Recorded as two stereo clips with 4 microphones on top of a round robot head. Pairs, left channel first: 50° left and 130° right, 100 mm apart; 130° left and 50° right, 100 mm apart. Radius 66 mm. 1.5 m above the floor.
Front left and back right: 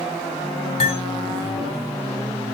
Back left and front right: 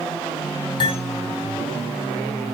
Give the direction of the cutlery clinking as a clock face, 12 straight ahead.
9 o'clock.